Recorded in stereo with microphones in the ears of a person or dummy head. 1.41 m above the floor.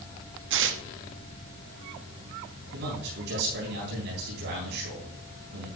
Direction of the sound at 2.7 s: 60° right (ahead or behind).